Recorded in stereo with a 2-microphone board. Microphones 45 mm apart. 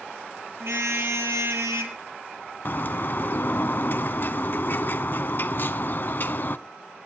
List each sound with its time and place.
0.6 s a car horn: 65° right (ahead or behind), 3 m; by 2.0 s 75° right (ahead or behind), 2.5 m
2.6 s a bird: 45° left (ahead or behind), 0.6 m